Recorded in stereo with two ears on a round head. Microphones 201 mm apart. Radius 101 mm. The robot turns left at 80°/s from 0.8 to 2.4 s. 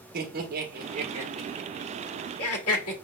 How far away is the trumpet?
No trumpet in this recording.